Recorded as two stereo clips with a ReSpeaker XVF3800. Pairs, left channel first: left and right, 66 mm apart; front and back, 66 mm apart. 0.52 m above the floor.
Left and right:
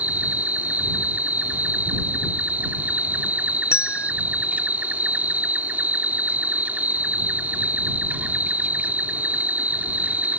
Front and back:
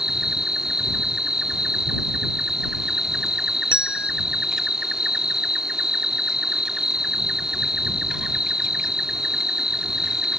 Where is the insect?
110° right.